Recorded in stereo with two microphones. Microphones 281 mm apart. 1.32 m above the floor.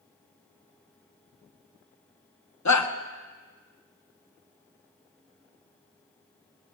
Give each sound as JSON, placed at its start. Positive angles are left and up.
{"t": 2.6, "sound": "a shout", "side_deg": 75, "distance_m": 0.7}